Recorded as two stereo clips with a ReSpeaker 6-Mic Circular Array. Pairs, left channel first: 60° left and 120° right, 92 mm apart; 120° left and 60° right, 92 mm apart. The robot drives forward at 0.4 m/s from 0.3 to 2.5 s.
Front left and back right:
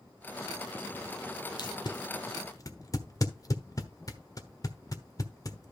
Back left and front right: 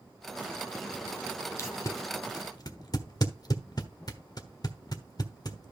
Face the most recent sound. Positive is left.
turn(degrees=95)